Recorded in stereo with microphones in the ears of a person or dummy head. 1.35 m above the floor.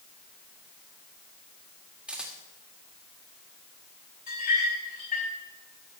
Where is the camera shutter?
Centre (ahead or behind), 2.0 m.